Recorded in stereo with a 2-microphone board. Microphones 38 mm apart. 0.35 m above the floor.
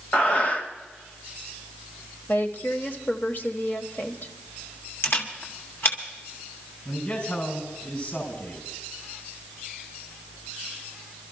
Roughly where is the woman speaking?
Left.